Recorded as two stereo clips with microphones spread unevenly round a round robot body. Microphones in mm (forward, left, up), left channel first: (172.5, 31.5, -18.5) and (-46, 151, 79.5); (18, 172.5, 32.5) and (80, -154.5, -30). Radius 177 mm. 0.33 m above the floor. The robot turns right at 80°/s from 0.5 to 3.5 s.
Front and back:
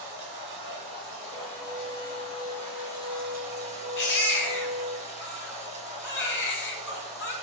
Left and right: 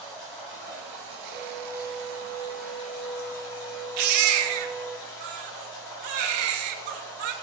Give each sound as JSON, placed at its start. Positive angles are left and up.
{"t": 0.0, "sound": "running water", "azimuth_deg": -160, "distance_m": 6.0}
{"t": 1.3, "sound": "a violin", "azimuth_deg": 40, "distance_m": 3.0}
{"t": 4.0, "sound": "a baby crying", "azimuth_deg": -80, "distance_m": 1.5}